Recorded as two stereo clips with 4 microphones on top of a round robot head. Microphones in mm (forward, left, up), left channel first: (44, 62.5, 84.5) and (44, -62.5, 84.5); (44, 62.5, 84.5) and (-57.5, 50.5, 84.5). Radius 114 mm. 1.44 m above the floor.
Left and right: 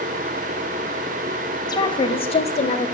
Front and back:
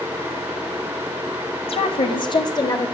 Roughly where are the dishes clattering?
I don't hear dishes clattering.